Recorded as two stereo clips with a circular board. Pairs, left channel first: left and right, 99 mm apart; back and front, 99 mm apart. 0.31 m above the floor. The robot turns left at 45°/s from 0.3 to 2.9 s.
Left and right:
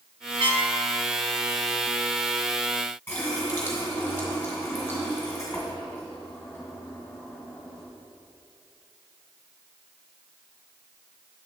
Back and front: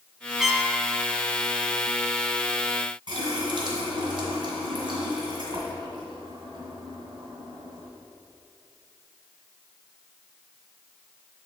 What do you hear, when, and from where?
0.4 s a trumpet: 85° right, 0.6 m; by 0.7 s 100° right, 0.6 m
3.1 s a running tap: 20° left, 1.9 m